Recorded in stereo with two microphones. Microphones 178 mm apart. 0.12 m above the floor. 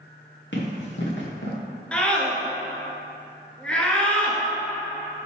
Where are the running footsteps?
90° left, 2 m; by 1.6 s 75° left (ahead or behind), 1.5 m.